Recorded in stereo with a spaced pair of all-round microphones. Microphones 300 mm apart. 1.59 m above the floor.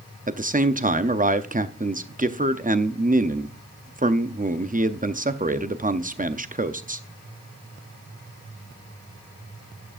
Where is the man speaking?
25° right (ahead or behind), 0.6 m.